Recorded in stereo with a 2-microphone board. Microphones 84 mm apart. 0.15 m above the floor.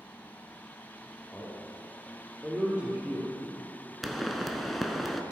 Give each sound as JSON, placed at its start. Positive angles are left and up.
{"t": 1.3, "sound": "a man speaking", "side_deg": -15, "distance_m": 3.5}
{"t": 4.0, "sound": "a pop", "side_deg": 0, "distance_m": 0.8}